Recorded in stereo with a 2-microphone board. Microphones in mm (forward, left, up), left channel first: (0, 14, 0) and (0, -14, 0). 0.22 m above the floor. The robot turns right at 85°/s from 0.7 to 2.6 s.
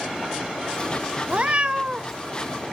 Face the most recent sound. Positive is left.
turn(degrees=20)